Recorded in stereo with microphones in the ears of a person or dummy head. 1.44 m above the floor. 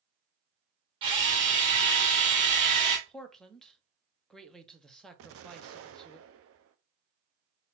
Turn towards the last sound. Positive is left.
turn(degrees=-65)  # may be behind; listen again after turning